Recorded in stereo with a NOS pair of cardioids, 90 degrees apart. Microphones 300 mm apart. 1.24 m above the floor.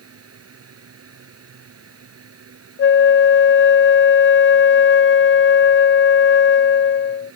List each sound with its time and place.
0.0 s a fan: 50° right
2.8 s a flute: 40° left